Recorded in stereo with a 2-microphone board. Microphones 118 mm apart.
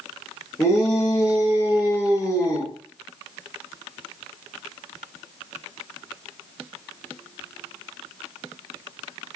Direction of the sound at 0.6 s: 35° left (ahead or behind).